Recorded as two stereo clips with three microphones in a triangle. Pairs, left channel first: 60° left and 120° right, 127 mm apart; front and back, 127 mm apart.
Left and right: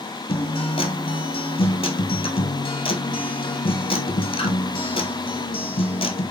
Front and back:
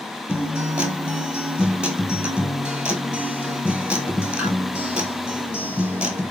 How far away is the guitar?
About 0.9 m.